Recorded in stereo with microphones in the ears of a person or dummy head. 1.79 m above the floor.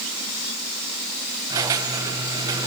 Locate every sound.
1.5 s a squeak: 15° right (ahead or behind), 1.1 m